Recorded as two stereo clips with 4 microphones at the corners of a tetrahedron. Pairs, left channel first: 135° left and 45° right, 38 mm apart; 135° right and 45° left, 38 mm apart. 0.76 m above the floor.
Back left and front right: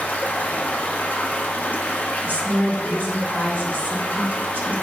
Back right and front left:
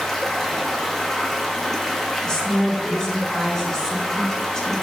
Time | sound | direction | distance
0.0 | running water | 145° left | 0.9 m
2.2 | a woman speaking | 65° right | 2.0 m